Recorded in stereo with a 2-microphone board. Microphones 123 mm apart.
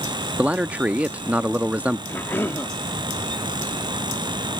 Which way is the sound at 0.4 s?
10° right (ahead or behind).